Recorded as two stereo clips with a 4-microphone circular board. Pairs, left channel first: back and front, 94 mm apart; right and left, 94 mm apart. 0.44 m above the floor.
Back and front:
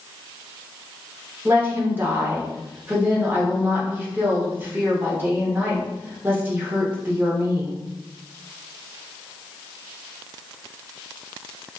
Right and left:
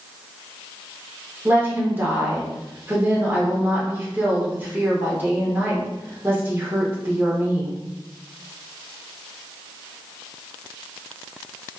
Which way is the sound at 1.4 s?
45° left.